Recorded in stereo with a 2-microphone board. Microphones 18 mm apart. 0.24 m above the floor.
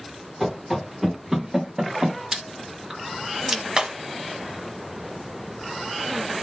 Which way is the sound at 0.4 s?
10° right (ahead or behind).